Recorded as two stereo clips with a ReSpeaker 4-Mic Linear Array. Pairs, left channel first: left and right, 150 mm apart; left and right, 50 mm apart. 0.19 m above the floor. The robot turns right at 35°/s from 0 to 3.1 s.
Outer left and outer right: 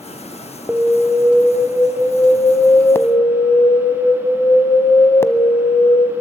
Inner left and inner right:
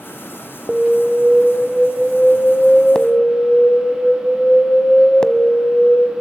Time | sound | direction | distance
0.7 | an alarm | 5° right (ahead or behind) | 0.9 m